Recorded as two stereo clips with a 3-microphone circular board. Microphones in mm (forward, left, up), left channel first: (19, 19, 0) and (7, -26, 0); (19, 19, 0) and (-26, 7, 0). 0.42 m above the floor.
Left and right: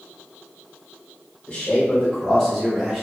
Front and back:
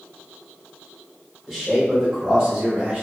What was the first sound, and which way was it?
A man speaking, 100° left.